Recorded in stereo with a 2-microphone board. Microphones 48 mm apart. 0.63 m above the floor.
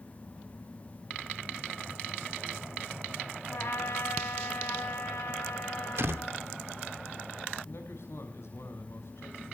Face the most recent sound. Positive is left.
turn(degrees=65)  # may be behind; listen again after turning